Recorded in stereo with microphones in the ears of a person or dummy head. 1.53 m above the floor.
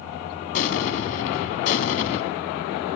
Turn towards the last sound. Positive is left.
turn(degrees=35)  # may be behind; listen again after turning